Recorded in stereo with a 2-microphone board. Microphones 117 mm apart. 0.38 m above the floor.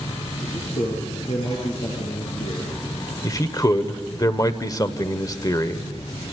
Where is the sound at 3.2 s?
30° left (ahead or behind), 1.2 m.